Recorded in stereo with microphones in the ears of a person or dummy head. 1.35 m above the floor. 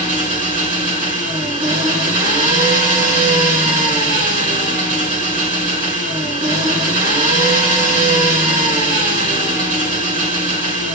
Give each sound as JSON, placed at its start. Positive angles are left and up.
{"t": 0.0, "sound": "an engine running", "side_deg": -50, "distance_m": 2.5}